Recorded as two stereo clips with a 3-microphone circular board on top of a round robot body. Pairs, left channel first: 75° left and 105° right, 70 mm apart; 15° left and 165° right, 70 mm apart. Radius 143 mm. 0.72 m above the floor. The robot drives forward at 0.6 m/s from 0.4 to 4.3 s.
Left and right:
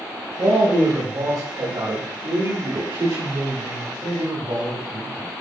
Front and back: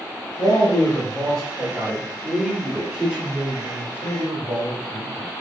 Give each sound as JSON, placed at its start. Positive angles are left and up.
{"t": 0.4, "sound": "a man speaking", "azimuth_deg": -55, "distance_m": 3.0}